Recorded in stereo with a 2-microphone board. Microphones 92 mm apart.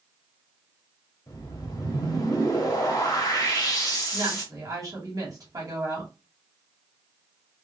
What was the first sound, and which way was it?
A whoosh, 45° left (ahead or behind).